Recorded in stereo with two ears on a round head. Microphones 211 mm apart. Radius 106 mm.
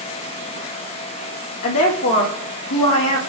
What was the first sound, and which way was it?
A woman speaking, 65° left (ahead or behind).